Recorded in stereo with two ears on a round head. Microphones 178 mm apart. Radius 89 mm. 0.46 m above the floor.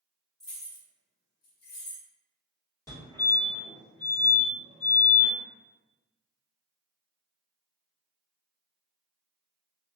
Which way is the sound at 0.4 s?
5° left (ahead or behind).